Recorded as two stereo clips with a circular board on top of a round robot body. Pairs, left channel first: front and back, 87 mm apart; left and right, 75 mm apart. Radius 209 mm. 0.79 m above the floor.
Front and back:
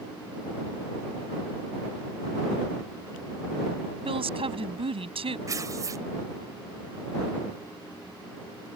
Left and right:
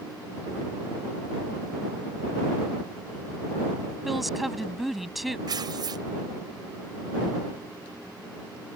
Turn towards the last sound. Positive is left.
turn(degrees=-125)